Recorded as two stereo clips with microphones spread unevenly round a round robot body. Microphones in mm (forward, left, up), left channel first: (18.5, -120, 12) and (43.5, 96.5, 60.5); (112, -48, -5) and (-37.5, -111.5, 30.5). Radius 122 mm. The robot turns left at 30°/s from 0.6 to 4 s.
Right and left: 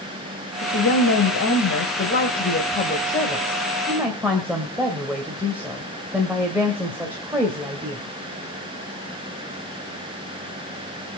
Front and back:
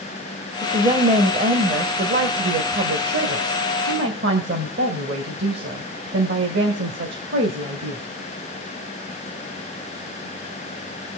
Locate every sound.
0.6 s a woman speaking: 90° right, 2 m; by 8.0 s 170° left, 2 m